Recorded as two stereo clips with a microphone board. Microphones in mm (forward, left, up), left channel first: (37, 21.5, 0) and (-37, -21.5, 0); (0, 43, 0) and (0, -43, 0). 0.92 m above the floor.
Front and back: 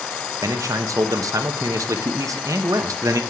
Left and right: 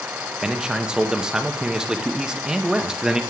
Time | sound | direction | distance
0.4 | a man speaking | 170° right | 0.9 m